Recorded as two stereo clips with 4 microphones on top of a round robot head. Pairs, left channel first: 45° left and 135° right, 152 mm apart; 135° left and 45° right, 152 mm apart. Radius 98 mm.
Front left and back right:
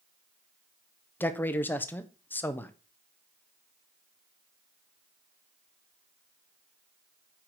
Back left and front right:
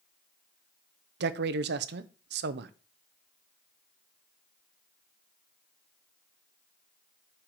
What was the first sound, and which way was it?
A man speaking, 30° right.